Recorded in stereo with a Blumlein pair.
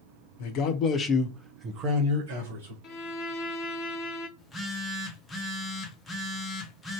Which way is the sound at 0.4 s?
45° left.